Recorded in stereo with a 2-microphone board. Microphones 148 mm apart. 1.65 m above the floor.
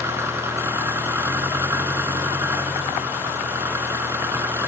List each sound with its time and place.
0.0 s an engine running: 15° right (ahead or behind)